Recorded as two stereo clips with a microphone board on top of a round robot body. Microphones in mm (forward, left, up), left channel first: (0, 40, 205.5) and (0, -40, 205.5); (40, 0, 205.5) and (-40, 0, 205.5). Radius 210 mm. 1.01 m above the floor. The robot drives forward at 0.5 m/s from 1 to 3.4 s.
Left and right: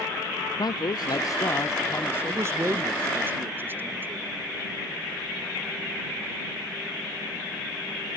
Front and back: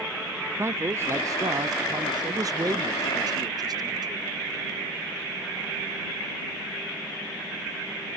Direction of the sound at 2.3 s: 140° right.